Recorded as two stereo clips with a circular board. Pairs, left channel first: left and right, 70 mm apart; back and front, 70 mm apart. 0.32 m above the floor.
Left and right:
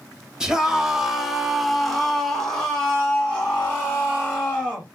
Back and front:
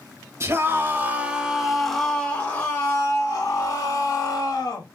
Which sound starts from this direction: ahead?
A scream, at 0.4 s.